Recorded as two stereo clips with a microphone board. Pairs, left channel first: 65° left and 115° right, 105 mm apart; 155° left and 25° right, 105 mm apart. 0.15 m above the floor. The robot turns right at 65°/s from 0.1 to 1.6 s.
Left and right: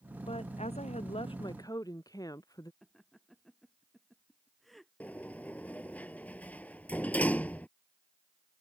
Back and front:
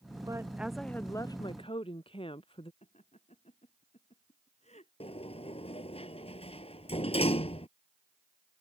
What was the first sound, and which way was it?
A woman speaking, 35° left.